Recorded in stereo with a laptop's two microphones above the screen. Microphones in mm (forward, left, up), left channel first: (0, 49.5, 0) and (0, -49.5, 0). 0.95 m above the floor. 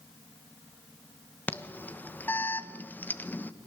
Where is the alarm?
20° left (ahead or behind), 1.3 m.